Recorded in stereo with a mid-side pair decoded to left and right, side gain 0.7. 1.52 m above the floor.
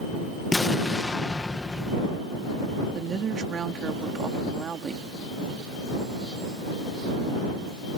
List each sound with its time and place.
0.5 s an explosion: 15° left
2.9 s a woman speaking: 30° right